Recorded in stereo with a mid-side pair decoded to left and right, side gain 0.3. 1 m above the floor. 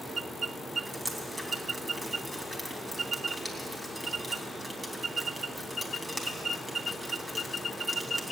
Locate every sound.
0.9 s dripping: 20° right, 4 m